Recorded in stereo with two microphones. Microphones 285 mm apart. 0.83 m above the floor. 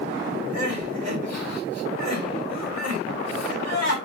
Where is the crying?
65° right (ahead or behind), 2.5 m.